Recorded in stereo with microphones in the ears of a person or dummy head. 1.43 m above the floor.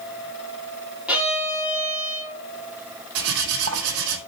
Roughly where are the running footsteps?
No running footsteps in this recording.